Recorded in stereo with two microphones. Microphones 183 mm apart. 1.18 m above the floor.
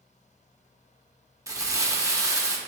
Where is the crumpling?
15° right (ahead or behind), 0.6 m.